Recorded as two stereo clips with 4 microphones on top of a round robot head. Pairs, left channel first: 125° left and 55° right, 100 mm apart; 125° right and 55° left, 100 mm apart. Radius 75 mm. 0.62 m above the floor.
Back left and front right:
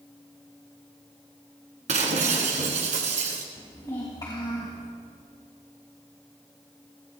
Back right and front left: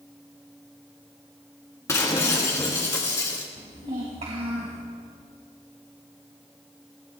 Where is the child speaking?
70° left, 3 m.